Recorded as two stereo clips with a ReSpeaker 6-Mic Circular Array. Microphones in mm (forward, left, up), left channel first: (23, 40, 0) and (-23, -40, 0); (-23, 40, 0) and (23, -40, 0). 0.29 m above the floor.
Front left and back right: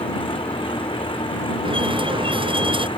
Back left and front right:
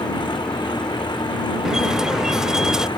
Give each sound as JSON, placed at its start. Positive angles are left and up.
{"t": 0.0, "sound": "an engine running", "azimuth_deg": 80}
{"t": 1.6, "sound": "a squeak", "azimuth_deg": -145}